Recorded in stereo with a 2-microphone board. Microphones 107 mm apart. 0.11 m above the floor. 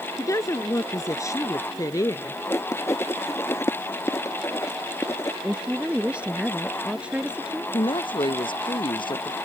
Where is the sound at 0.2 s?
30° left (ahead or behind).